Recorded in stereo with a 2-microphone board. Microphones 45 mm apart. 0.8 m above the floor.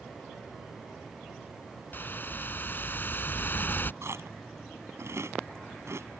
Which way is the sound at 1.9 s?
50° left (ahead or behind).